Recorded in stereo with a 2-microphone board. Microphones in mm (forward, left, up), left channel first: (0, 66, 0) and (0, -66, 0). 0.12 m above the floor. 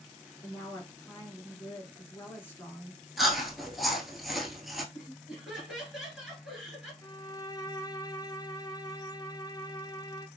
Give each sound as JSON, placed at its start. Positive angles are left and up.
{"t": 0.4, "sound": "a woman speaking", "side_deg": 15, "distance_m": 1.6}
{"t": 3.2, "sound": "chewing", "side_deg": 0, "distance_m": 0.8}
{"t": 4.9, "sound": "laughter", "side_deg": 0, "distance_m": 2.0}
{"t": 7.0, "sound": "a violin", "side_deg": 30, "distance_m": 0.5}